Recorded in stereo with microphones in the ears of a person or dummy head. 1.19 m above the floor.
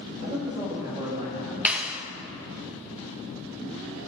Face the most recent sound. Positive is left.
turn(degrees=-5)  # may be behind; listen again after turning